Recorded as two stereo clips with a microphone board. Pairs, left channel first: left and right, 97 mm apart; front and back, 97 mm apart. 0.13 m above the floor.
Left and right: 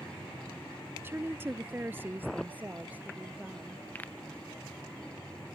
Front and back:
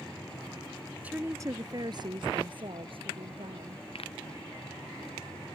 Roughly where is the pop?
Ahead.